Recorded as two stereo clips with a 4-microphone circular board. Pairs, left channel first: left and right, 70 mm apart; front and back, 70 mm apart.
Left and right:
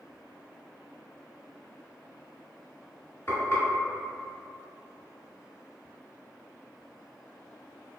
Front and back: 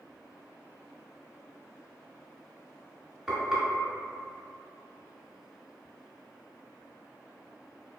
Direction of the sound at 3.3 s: 95° left.